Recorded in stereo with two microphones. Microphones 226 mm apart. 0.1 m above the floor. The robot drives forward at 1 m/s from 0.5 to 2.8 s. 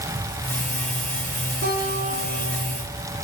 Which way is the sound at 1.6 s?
60° right (ahead or behind).